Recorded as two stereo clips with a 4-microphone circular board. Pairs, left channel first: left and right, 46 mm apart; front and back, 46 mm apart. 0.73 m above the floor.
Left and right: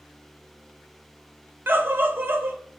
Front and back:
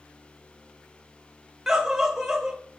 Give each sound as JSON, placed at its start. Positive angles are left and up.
{"t": 1.7, "sound": "a scream", "azimuth_deg": -100, "distance_m": 0.7}